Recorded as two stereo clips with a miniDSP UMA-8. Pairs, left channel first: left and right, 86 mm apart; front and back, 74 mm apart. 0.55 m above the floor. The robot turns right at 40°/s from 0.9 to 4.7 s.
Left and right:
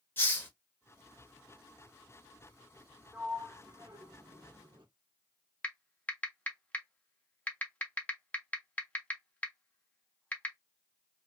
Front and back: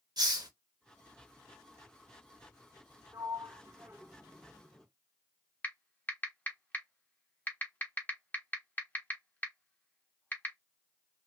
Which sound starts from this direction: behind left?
A hiss, at 0.2 s.